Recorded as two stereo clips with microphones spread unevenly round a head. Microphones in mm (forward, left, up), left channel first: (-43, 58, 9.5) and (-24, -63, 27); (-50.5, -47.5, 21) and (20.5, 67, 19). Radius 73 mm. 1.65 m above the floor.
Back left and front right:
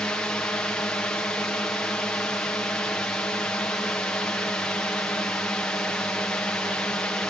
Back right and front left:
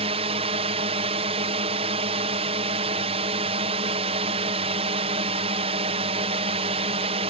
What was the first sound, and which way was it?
A drone, 20° left.